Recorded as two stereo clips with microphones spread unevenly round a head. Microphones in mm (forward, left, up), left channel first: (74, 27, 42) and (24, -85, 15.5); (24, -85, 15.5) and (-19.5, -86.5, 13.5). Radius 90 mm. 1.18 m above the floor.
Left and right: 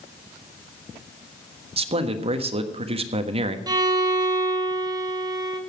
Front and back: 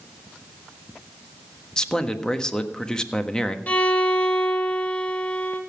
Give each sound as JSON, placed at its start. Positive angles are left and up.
{"t": 1.8, "sound": "a man speaking", "azimuth_deg": -70, "distance_m": 1.4}
{"t": 3.7, "sound": "a violin", "azimuth_deg": -50, "distance_m": 1.8}